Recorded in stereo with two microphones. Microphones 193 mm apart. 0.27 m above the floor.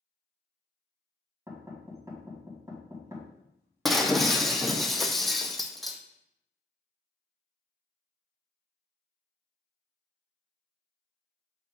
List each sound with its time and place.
1.5 s knocking: 15° right (ahead or behind), 1.9 m
3.9 s breaking glass: centre (ahead or behind), 0.8 m